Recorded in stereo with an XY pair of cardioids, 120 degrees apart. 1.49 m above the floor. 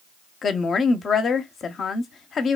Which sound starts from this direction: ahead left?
A woman speaking, at 0.4 s.